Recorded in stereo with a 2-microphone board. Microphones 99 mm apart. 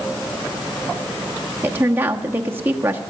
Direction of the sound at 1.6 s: 25° right (ahead or behind).